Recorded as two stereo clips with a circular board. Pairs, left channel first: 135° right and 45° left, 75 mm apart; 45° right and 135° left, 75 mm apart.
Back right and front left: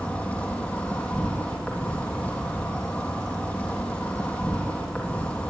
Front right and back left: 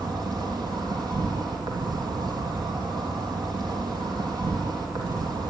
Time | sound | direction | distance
0.0 | an insect | 155° left | 4 m